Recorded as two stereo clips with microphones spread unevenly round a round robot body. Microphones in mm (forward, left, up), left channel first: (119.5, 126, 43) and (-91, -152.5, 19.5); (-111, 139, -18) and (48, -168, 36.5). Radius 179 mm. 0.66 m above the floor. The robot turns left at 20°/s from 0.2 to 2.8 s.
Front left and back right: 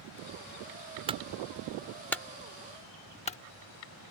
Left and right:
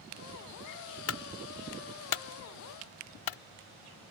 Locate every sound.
1.1 s a clunk: 160° left; by 3.4 s 125° left